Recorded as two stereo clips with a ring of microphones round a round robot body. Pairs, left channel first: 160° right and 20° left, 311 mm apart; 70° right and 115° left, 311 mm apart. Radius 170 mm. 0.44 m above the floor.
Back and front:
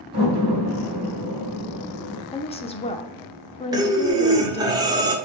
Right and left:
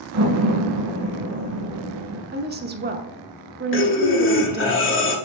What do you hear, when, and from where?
0.1 s a door slam: 85° left, 3.5 m
2.3 s a woman speaking: 145° left, 1.0 m
3.7 s breathing: 50° right, 1.3 m